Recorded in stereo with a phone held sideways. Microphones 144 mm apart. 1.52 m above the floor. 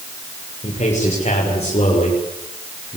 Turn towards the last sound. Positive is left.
turn(degrees=45)  # may be behind; listen again after turning